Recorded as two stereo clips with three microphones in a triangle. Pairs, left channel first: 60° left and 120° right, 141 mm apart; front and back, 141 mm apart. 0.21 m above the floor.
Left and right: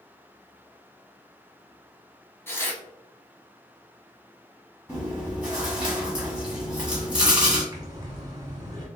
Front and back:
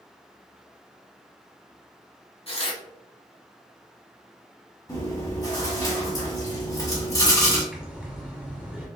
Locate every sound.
2.5 s tearing paper: 5° right, 0.9 m
4.9 s chewing: 45° right, 1.9 m
7.7 s breathing: 105° right, 1.1 m